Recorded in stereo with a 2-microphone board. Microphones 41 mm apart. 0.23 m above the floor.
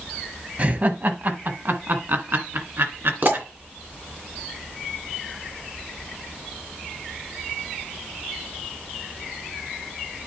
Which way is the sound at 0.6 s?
35° right (ahead or behind).